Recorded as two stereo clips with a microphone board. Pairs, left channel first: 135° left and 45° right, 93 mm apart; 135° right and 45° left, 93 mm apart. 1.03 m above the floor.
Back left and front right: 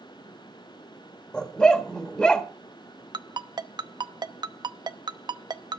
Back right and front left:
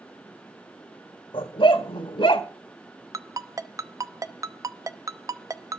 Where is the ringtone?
5° right, 0.7 m.